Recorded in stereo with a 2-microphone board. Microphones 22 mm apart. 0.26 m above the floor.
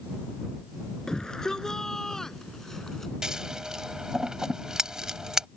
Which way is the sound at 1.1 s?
25° left (ahead or behind).